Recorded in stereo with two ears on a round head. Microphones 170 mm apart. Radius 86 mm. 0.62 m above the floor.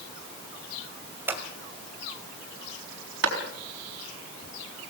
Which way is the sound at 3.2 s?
70° right (ahead or behind).